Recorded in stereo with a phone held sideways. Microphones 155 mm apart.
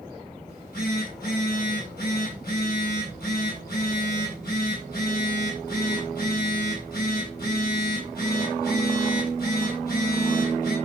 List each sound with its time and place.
0.5 s a phone buzzing: 85° left, 9 m